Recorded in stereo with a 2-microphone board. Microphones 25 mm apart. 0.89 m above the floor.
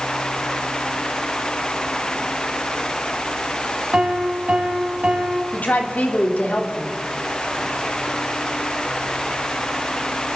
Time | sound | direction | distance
3.9 | a piano | 45° right (ahead or behind) | 2 m
5.5 | a woman speaking | 75° left (ahead or behind) | 2.5 m